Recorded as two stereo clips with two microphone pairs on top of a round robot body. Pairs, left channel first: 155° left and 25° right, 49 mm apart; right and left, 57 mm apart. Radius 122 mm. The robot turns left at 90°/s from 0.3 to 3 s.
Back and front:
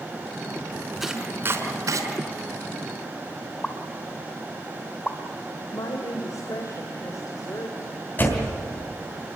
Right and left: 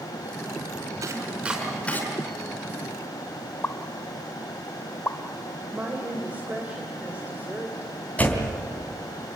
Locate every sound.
1.0 s chopping: 60° left, 5 m; by 2.0 s 35° right, 5 m
3.6 s a pop: 135° right, 1.3 m
5.7 s a woman speaking: 155° left, 2.5 m
8.2 s a door slam: 155° right, 3.5 m